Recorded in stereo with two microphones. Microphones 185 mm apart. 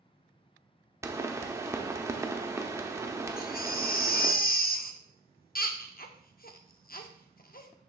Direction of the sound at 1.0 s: 15° right (ahead or behind).